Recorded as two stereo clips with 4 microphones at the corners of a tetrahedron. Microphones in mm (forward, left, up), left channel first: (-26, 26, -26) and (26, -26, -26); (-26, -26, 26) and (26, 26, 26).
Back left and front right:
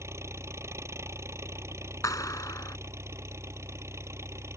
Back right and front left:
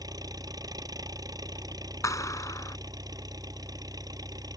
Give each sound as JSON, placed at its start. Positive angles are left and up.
{"t": 0.0, "sound": "an engine running", "azimuth_deg": 10}
{"t": 2.0, "sound": "a clap", "azimuth_deg": 180}